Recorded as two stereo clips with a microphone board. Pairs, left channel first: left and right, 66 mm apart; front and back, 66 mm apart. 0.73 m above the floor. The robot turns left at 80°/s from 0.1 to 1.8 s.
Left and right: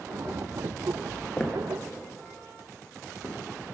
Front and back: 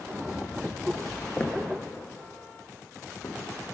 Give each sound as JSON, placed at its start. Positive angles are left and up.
{"t": 1.4, "sound": "footsteps", "azimuth_deg": 30, "distance_m": 0.8}